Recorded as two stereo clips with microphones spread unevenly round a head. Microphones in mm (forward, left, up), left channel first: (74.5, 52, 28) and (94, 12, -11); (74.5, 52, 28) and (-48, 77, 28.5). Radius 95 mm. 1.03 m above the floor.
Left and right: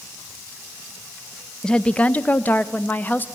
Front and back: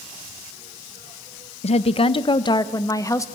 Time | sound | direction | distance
1.6 | a woman speaking | 10° left | 0.6 m